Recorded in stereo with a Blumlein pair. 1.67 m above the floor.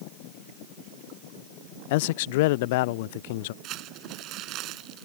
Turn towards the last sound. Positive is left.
turn(degrees=-35)